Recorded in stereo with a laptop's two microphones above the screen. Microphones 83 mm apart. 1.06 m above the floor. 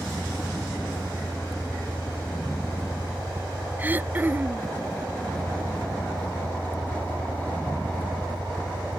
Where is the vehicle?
20° left (ahead or behind).